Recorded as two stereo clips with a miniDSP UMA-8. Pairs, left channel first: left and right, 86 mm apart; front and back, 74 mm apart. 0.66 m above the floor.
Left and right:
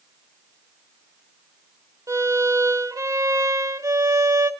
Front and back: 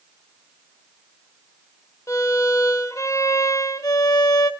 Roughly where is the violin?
Ahead right.